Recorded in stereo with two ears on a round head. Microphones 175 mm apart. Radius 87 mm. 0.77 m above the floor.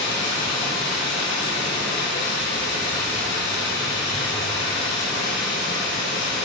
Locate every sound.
0.0 s running water: 65° left (ahead or behind), 5.5 m